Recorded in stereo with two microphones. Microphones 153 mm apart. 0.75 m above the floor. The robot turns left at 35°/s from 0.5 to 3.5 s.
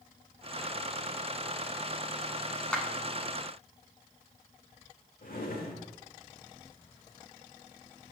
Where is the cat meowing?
I don't hear a cat meowing.